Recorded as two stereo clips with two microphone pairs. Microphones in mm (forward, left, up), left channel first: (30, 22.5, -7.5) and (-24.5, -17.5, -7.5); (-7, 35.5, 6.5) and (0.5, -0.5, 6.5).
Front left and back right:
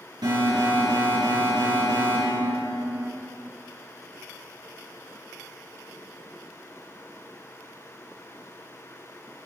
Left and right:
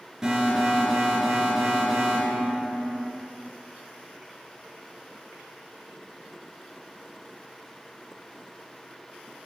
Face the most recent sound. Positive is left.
turn(degrees=-150)